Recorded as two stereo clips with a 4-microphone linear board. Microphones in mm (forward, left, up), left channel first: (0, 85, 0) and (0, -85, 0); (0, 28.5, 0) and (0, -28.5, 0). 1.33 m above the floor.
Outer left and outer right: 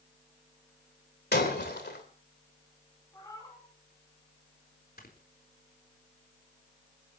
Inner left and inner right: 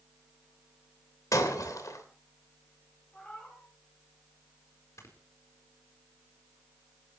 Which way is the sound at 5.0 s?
60° left (ahead or behind).